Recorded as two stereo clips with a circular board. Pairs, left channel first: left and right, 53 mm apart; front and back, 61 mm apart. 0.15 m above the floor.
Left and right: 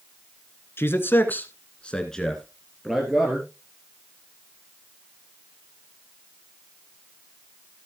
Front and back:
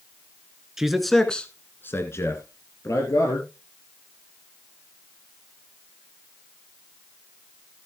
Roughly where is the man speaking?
Left.